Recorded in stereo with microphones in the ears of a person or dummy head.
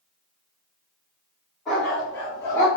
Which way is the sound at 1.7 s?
10° left (ahead or behind).